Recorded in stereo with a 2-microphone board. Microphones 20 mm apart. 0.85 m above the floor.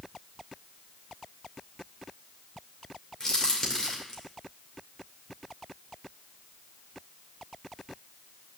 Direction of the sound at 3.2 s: 35° left (ahead or behind).